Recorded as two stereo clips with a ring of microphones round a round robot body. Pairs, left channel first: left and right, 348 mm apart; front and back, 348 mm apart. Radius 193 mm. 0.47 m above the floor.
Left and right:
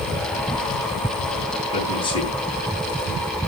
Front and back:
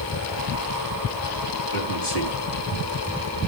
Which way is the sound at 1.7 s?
15° left.